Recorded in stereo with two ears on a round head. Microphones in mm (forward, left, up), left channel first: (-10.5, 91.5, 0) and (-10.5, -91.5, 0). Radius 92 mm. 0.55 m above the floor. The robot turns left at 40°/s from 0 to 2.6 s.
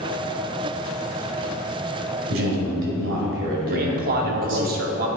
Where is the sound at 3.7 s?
50° right (ahead or behind), 1.0 m.